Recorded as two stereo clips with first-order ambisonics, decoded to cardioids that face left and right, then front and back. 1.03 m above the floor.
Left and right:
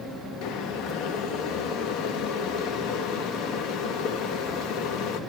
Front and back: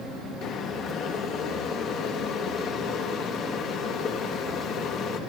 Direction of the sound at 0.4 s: 55° left.